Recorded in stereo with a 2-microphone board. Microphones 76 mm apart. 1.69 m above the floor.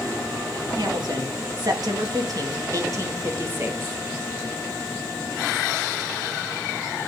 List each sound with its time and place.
0.8 s a woman speaking: 75° right (ahead or behind), 2 m; by 4.0 s 30° right (ahead or behind), 2 m